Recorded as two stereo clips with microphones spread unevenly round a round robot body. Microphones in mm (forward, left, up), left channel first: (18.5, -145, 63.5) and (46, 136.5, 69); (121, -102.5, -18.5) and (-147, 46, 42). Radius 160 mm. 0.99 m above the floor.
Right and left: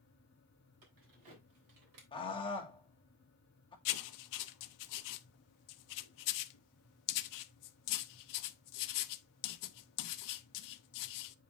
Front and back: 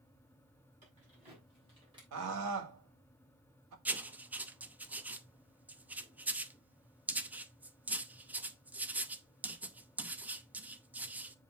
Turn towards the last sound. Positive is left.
turn(degrees=-125)